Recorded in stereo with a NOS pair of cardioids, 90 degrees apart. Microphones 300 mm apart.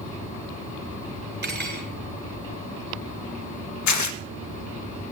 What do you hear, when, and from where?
1.4 s cutlery clinking: 40° right, 7.5 m
3.9 s tearing paper: 70° left, 1.6 m